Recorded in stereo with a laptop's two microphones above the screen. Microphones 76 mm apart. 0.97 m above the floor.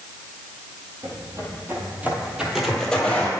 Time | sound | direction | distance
1.0 | footsteps | 45° right (ahead or behind) | 1.4 m